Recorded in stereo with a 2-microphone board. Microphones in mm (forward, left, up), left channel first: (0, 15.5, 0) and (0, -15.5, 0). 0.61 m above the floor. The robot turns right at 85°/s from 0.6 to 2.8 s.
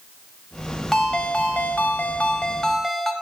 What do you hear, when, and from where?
0.9 s a ringtone: 10° left, 1.1 m; by 3.1 s 170° left, 1.1 m